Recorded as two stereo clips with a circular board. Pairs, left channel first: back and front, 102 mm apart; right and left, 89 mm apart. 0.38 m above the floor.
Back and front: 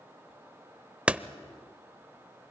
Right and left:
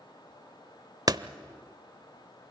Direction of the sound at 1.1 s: 75° left.